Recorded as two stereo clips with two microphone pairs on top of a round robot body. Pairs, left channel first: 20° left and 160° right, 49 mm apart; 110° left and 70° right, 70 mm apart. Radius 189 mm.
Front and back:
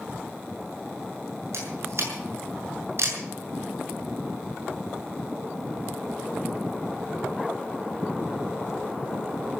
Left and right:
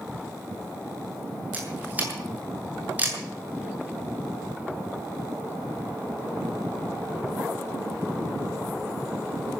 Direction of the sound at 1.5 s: 135° right.